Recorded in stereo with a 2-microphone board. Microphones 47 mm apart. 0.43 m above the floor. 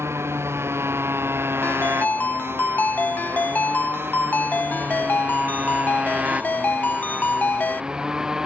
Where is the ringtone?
35° left (ahead or behind).